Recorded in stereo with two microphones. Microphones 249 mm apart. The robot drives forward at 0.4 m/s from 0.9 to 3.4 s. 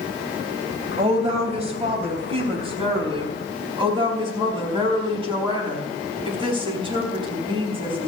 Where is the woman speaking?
25° right (ahead or behind), 3.5 m; by 8.1 s 20° right (ahead or behind), 4.5 m.